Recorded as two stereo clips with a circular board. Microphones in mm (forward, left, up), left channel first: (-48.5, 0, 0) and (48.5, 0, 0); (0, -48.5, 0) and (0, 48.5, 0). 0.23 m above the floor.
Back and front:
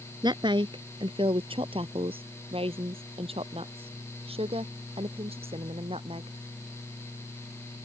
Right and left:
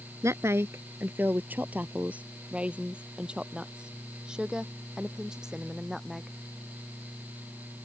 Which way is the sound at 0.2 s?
35° left.